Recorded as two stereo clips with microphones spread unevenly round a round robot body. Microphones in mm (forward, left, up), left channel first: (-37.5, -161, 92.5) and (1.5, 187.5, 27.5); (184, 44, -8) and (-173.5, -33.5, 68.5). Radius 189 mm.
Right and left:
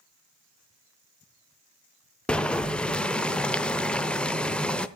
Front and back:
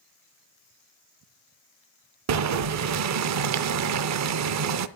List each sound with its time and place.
2.3 s boiling: 160° left, 0.6 m